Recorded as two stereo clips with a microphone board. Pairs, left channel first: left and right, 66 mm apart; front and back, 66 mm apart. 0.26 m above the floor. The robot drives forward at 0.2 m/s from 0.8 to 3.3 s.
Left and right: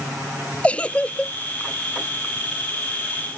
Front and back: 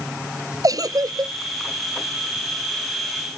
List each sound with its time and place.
0.6 s a giggle: 160° left